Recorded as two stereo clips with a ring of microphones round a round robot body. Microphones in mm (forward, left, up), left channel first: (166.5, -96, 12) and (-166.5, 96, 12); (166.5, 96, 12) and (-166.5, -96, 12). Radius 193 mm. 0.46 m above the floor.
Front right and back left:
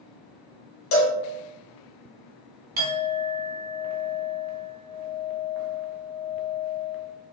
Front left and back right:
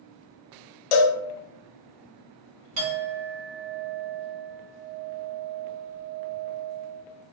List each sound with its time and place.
0.9 s a cowbell: 30° left, 0.7 m
2.8 s a clink: 145° right, 1.4 m